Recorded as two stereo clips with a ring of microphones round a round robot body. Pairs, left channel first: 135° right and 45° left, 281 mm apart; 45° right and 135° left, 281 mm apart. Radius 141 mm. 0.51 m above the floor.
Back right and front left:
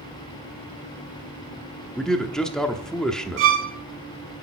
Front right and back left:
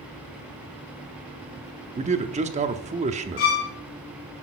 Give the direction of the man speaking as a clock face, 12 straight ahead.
7 o'clock.